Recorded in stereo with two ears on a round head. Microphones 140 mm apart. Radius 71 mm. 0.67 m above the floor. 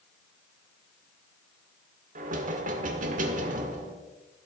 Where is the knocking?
55° right (ahead or behind), 1.6 m.